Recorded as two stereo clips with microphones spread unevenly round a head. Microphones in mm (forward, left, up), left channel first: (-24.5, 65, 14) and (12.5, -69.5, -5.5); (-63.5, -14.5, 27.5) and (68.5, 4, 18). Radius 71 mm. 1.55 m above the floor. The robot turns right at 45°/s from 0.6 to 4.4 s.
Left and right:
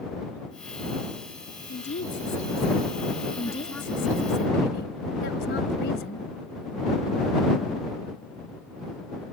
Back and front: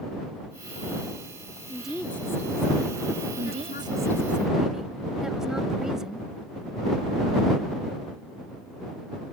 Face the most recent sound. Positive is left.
turn(degrees=95)